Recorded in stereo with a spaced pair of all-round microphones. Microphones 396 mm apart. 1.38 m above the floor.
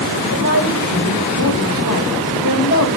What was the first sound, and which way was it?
A woman speaking, 60° left (ahead or behind).